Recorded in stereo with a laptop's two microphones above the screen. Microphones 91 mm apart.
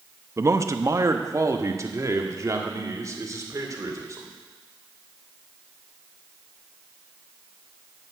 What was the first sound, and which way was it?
A man speaking, 30° right (ahead or behind).